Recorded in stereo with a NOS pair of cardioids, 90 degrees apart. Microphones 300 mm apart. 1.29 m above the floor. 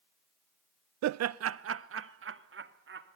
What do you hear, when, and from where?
1.0 s laughter: 70° right, 0.6 m; by 3.1 s 40° right, 3.5 m